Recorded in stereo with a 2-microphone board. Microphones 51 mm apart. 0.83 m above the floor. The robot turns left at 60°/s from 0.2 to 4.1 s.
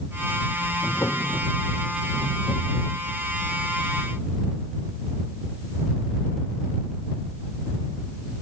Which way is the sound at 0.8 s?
115° left.